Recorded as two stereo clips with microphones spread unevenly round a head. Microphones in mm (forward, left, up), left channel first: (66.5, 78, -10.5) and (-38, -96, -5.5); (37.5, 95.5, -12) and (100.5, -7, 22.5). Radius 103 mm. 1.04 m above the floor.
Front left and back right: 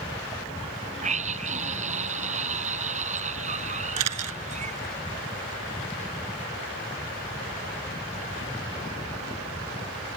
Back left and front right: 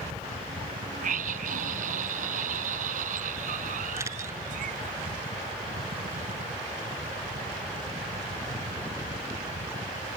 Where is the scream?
65° right.